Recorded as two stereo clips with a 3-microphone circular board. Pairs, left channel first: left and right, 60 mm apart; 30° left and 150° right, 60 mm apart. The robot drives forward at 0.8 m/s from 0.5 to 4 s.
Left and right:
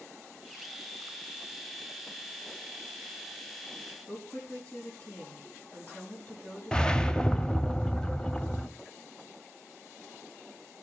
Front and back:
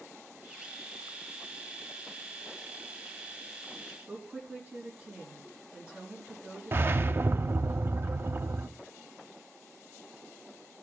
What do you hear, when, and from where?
4.1 s a woman speaking: 145° left, 5 m
6.7 s a whoosh: 165° left, 0.5 m